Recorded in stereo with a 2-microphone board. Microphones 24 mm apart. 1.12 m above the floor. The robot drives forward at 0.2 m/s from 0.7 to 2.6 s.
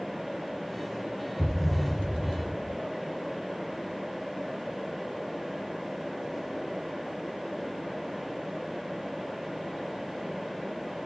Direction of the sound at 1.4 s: 15° left (ahead or behind).